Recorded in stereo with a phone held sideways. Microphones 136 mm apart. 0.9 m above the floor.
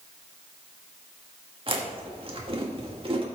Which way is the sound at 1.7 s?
40° right (ahead or behind).